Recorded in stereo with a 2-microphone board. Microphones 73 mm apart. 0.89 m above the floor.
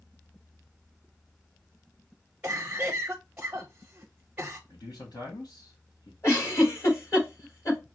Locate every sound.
2.4 s a cough: 20° right (ahead or behind), 0.8 m
4.7 s a man speaking: 65° left (ahead or behind), 1.5 m
6.2 s a giggle: 40° left (ahead or behind), 3.5 m